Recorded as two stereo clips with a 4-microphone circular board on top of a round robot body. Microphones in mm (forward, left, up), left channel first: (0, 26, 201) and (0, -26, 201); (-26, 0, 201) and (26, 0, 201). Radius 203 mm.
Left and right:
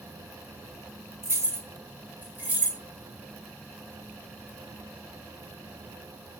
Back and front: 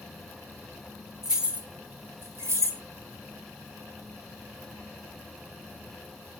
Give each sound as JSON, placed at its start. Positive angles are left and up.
{"t": 1.2, "sound": "keys jangling", "azimuth_deg": -80, "distance_m": 1.2}